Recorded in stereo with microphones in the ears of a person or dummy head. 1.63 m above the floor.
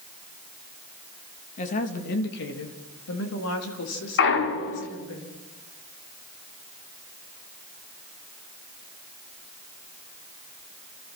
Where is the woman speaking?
40° left (ahead or behind), 3 m; by 5.2 s 75° left (ahead or behind), 6 m.